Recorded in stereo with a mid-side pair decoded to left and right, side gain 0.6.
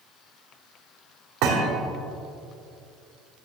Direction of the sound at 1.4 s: 70° right.